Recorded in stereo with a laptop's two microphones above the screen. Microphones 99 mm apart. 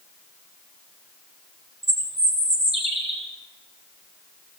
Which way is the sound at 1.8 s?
85° right.